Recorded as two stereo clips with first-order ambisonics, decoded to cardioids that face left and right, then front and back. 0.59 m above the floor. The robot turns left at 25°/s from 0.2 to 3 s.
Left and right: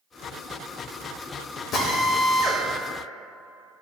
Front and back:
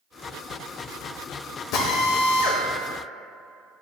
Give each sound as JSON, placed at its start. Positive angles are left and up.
{"t": 1.7, "sound": "a drill", "azimuth_deg": 40, "distance_m": 1.0}